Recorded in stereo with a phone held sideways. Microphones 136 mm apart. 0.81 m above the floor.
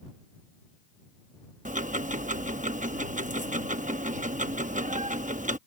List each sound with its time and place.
1.6 s ticking: 70° right (ahead or behind)